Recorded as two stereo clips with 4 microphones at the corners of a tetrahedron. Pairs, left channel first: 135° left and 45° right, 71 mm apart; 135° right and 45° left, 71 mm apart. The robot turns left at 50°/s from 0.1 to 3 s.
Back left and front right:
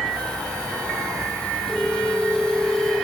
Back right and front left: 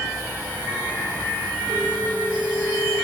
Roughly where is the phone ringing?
Ahead left.